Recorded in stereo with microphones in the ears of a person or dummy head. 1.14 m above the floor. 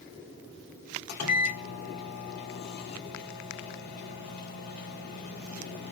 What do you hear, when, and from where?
1.1 s a microwave: 50° left (ahead or behind), 1.0 m